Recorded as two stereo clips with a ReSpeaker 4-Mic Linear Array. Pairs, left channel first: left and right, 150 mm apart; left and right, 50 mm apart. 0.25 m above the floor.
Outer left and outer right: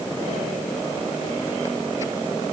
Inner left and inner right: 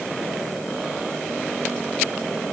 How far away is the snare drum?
I don't hear a snare drum.